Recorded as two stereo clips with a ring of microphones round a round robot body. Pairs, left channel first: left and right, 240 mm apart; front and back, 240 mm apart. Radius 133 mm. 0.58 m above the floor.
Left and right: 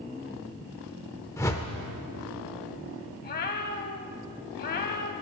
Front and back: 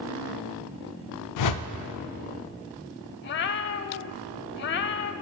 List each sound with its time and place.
1.4 s a whoosh: 10° left, 0.5 m
3.2 s a cat meowing: 35° left, 0.5 m